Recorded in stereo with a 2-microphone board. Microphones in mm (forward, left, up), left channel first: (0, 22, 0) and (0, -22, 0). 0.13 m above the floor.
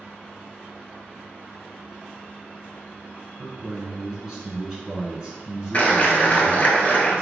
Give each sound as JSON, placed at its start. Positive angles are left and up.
{"t": 3.4, "sound": "a man speaking", "side_deg": -15, "distance_m": 1.5}
{"t": 5.7, "sound": "a clap", "side_deg": 30, "distance_m": 1.3}